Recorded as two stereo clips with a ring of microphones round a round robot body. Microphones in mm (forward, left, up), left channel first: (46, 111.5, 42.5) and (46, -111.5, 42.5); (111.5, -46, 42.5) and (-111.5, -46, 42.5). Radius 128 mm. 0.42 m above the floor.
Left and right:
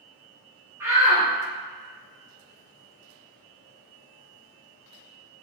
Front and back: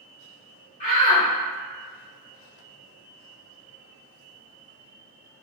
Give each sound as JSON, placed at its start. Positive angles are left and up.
{"t": 0.8, "sound": "a shout", "azimuth_deg": -20, "distance_m": 1.6}